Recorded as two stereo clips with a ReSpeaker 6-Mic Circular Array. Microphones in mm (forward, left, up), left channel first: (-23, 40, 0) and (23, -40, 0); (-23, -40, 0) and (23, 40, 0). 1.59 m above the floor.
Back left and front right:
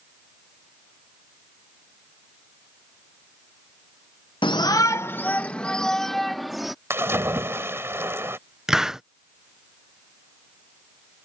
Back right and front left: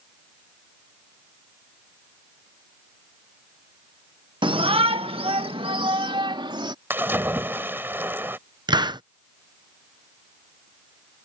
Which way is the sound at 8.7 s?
25° left.